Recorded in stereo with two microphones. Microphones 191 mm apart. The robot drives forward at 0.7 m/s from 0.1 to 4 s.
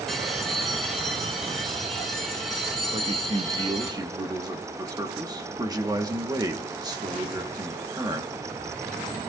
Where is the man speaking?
35° right (ahead or behind), 0.7 m; by 8.3 s 20° right (ahead or behind), 1.2 m.